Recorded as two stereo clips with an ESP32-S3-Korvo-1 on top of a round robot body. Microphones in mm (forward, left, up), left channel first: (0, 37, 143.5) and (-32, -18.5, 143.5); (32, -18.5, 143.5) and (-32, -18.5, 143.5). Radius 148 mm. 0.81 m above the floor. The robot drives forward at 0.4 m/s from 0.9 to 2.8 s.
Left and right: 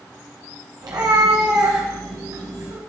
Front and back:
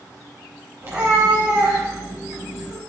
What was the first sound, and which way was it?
A cat meowing, 125° right.